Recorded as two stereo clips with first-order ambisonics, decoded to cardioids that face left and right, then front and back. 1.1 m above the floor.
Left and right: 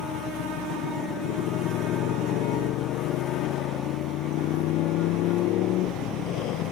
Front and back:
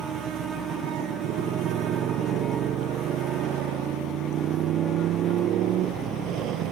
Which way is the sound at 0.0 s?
130° left.